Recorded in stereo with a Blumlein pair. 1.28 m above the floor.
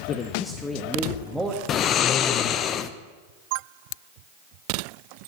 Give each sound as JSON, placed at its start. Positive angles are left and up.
{"t": 0.1, "sound": "a man speaking", "azimuth_deg": 30, "distance_m": 0.8}
{"t": 1.7, "sound": "snoring", "azimuth_deg": 30, "distance_m": 0.7}